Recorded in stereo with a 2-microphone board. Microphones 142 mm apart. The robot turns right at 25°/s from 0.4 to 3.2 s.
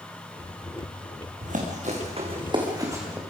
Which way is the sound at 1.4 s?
70° right (ahead or behind).